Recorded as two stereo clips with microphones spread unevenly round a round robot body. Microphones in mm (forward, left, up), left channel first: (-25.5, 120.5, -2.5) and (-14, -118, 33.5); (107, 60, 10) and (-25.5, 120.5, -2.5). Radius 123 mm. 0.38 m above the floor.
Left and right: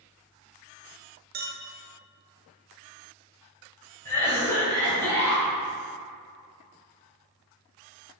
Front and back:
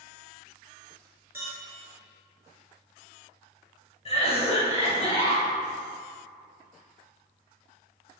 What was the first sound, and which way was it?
A clink, 135° right.